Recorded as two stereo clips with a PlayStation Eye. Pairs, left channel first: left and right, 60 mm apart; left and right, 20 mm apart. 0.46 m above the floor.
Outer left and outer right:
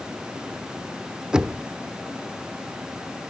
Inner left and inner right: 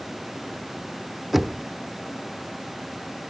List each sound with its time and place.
1.3 s knocking: 10° right (ahead or behind), 0.8 m